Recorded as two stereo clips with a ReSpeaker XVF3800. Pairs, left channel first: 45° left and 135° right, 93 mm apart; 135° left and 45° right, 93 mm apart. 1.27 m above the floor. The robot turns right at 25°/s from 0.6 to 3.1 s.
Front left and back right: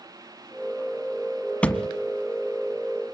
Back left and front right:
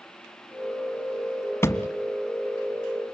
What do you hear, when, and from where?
1.6 s a thud: 110° left, 1.3 m; by 1.9 s 115° left, 1.3 m